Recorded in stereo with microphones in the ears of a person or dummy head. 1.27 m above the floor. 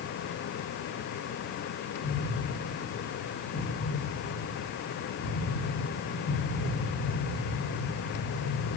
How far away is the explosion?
About 0.8 m.